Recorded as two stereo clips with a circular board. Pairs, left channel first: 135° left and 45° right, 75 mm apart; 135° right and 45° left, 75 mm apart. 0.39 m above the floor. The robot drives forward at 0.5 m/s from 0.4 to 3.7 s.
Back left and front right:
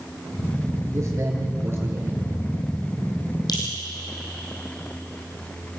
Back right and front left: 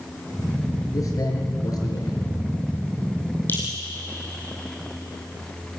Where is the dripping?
160° left, 7 m.